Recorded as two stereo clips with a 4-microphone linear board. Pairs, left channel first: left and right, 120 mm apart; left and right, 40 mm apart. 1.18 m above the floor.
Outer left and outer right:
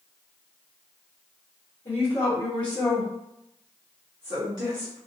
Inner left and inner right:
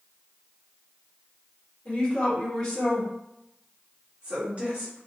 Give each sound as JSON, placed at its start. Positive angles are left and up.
{"t": 1.9, "sound": "a woman speaking", "side_deg": 50, "distance_m": 1.2}